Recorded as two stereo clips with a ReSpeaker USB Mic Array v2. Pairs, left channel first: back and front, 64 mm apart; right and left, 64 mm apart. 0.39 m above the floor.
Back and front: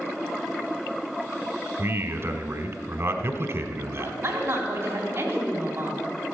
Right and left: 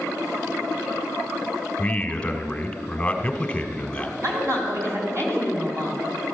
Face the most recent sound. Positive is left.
turn(degrees=45)